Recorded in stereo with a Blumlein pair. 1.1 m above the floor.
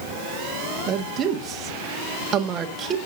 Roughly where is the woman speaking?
Ahead right.